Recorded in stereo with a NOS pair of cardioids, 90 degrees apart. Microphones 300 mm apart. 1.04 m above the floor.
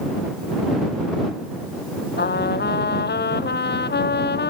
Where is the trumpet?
35° left.